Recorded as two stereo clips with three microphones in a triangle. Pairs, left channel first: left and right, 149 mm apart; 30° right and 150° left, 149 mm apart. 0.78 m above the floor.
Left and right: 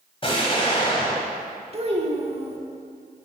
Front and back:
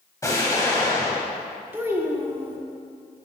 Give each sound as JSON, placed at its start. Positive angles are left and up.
{"t": 0.2, "sound": "an explosion", "azimuth_deg": 35, "distance_m": 1.7}
{"t": 1.7, "sound": "a child speaking", "azimuth_deg": -135, "distance_m": 1.2}